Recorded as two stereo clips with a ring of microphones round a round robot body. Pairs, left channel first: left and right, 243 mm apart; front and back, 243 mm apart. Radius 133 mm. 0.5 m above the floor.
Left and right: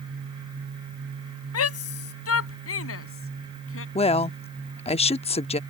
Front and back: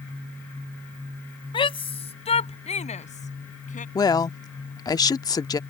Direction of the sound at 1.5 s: 70° left.